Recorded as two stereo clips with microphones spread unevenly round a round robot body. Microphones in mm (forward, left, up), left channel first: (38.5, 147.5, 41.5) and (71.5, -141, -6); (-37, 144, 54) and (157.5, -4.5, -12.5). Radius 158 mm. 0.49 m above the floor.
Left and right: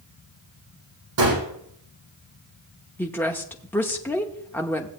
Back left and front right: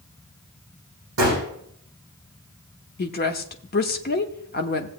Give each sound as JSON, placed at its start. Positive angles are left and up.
{"t": 1.2, "sound": "a gunshot", "azimuth_deg": -75, "distance_m": 5.5}
{"t": 3.0, "sound": "a woman speaking", "azimuth_deg": -170, "distance_m": 0.8}